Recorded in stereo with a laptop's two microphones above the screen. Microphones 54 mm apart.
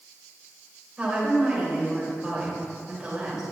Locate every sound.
1.0 s a woman speaking: 15° right (ahead or behind), 3.5 m